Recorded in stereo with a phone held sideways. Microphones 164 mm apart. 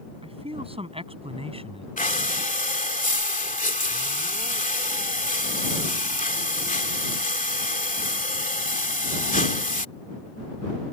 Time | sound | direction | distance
0.2 | a man speaking | 35° right (ahead or behind) | ?
2.0 | breathing | 55° left (ahead or behind) | ?